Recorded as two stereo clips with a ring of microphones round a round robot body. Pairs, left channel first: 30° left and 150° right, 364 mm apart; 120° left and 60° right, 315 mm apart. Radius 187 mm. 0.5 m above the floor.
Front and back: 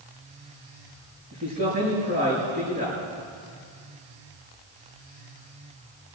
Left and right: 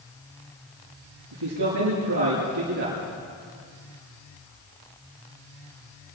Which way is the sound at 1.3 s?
90° right.